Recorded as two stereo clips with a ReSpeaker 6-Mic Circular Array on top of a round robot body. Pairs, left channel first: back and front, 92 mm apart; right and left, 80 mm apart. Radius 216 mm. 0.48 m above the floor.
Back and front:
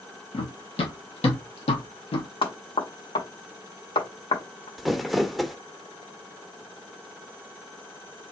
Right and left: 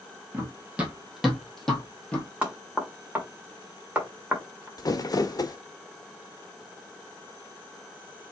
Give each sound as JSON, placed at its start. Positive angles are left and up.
{"t": 0.3, "sound": "running footsteps", "azimuth_deg": 155, "distance_m": 1.5}
{"t": 2.4, "sound": "knocking", "azimuth_deg": 165, "distance_m": 2.0}
{"t": 4.8, "sound": "crumpling", "azimuth_deg": -90, "distance_m": 1.1}